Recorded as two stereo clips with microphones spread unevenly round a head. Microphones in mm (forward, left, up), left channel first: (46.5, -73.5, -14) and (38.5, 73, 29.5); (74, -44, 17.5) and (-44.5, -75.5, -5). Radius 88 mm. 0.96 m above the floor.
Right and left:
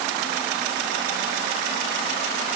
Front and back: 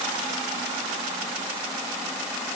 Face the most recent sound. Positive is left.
No sound to turn to.